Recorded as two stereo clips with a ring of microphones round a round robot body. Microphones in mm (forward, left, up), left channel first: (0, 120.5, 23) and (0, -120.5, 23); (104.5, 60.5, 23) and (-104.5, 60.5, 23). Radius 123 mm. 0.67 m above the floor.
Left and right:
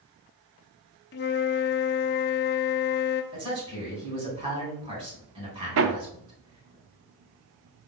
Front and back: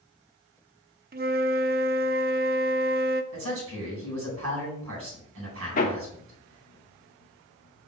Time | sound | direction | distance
1.1 | a flute | 135° left | 0.6 m
3.3 | a man speaking | 160° right | 4 m
5.8 | hammering | 60° right | 0.8 m